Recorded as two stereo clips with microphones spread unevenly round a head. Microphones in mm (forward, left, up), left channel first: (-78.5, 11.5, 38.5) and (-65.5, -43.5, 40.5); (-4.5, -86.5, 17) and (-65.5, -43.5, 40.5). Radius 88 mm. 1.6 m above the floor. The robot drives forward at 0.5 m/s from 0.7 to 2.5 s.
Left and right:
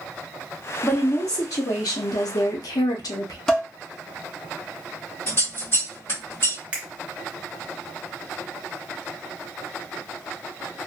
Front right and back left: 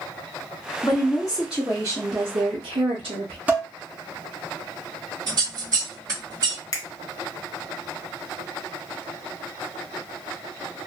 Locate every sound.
0.8 s a woman speaking: 40° left, 0.8 m; by 3.4 s 110° left, 0.6 m
3.5 s dishes clattering: 175° right, 0.7 m
5.3 s scissors: 145° left, 1.8 m
6.7 s a finger snap: 50° right, 0.5 m